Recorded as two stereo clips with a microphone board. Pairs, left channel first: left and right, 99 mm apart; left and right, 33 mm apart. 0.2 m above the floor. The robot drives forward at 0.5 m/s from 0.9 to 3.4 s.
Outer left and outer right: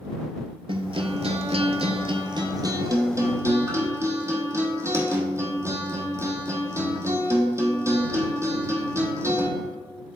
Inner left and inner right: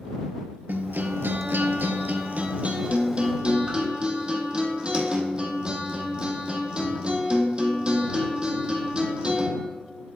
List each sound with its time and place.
0.7 s a guitar: 60° right (ahead or behind), 0.6 m; by 9.5 s 30° right (ahead or behind), 1.1 m